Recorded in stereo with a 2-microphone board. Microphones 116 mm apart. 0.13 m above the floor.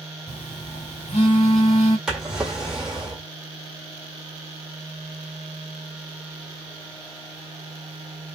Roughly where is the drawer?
Centre.